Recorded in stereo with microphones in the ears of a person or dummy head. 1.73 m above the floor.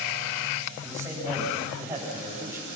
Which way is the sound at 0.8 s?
15° right (ahead or behind).